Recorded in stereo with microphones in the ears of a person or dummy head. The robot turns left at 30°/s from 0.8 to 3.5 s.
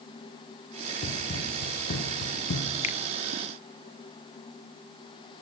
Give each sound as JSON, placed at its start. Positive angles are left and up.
{"t": 1.0, "sound": "running footsteps", "side_deg": 30, "distance_m": 3.0}
{"t": 2.8, "sound": "a finger snap", "side_deg": 40, "distance_m": 0.9}